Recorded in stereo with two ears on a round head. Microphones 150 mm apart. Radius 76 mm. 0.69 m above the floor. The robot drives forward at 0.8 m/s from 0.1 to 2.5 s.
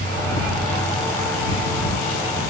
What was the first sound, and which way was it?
Only background noise.